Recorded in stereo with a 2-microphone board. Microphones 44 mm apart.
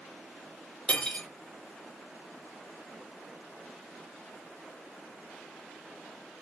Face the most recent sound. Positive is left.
turn(degrees=25)  # may be behind; listen again after turning